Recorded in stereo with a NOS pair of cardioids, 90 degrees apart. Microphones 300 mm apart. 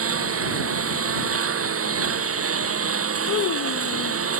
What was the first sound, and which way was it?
A lawn mower, 50° right.